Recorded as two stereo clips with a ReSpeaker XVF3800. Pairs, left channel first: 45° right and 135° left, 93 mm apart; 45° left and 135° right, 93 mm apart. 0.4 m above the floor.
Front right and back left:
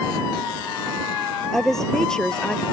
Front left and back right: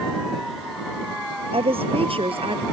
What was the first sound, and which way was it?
A woman speaking, 130° right.